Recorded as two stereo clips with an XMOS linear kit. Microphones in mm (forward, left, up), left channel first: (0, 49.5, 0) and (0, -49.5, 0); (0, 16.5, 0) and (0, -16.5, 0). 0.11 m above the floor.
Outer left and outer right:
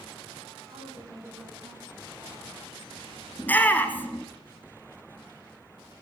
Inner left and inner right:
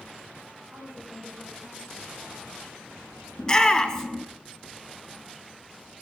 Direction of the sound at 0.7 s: 45° right (ahead or behind).